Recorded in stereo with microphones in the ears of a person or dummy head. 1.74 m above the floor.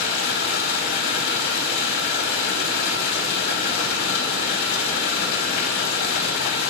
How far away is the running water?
About 1.6 m.